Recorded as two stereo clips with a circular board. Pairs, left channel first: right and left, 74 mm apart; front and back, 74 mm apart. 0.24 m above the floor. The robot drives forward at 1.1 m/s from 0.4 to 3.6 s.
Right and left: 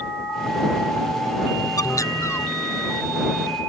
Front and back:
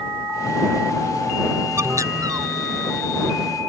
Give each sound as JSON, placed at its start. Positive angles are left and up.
{"t": 1.8, "sound": "a bird", "azimuth_deg": -130}